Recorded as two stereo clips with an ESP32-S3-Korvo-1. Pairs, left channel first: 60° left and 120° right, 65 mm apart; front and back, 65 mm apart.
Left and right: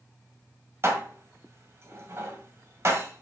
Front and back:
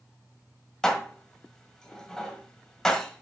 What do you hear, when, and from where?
0.8 s dishes clattering: 80° right, 1.4 m